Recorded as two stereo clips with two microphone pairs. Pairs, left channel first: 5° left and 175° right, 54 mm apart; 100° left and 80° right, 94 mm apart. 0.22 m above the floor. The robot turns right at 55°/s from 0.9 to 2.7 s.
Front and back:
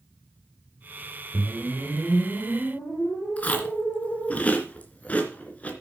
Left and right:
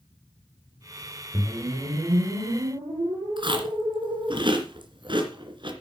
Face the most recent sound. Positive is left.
turn(degrees=-55)